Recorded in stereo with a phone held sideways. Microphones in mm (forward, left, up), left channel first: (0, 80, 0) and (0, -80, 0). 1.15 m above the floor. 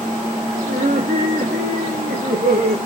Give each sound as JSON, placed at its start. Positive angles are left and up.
{"t": 0.7, "sound": "laughter", "side_deg": -75, "distance_m": 3.0}